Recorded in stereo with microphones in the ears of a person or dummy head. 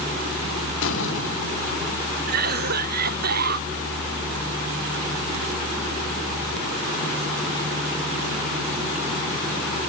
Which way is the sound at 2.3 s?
50° right (ahead or behind).